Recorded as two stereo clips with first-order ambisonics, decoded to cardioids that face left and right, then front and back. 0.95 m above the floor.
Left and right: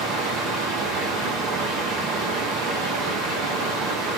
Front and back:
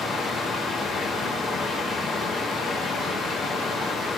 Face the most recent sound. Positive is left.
turn(degrees=-75)